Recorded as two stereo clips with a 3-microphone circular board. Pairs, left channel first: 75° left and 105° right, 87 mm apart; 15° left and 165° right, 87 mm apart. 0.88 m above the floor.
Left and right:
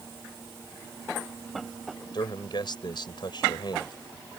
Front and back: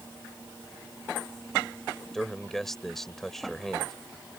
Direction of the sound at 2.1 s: 100° left.